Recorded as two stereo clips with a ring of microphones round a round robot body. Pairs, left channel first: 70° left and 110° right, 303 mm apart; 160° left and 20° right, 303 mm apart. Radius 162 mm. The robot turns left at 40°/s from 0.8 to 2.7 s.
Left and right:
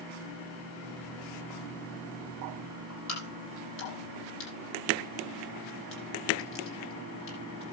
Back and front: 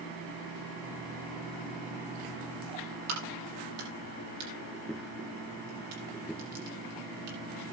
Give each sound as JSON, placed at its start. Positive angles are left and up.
{"t": 3.1, "sound": "a crack", "azimuth_deg": 15, "distance_m": 8.0}